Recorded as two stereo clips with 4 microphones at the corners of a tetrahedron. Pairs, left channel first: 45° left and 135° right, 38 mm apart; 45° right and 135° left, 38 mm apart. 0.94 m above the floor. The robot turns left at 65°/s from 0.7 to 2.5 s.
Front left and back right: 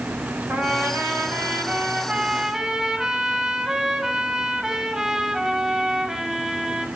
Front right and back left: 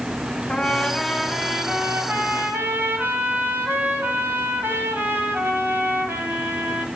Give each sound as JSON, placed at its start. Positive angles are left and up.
{"t": 0.5, "sound": "a trumpet", "azimuth_deg": -100, "distance_m": 6.5}